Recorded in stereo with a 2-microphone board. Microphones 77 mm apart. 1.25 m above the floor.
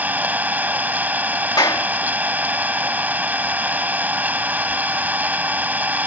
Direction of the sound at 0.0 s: 20° right (ahead or behind).